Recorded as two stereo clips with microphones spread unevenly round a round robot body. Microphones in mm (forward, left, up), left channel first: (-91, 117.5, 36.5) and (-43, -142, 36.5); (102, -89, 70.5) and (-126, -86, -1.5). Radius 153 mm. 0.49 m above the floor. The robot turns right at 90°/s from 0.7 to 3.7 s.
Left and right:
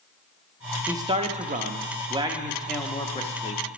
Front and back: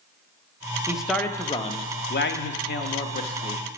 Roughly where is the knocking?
I don't hear knocking.